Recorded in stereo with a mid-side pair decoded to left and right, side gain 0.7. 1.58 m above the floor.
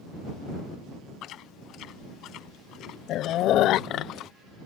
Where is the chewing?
55° left.